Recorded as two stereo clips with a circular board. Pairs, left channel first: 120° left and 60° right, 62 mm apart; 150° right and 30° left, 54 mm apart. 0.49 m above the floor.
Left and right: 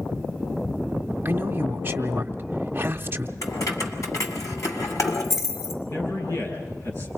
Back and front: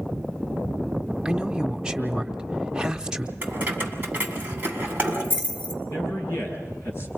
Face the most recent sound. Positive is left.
turn(degrees=160)